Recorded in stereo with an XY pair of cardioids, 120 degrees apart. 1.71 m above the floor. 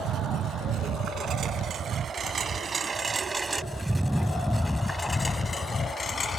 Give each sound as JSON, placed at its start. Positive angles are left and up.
{"t": 0.0, "sound": "a lawn mower", "azimuth_deg": -70}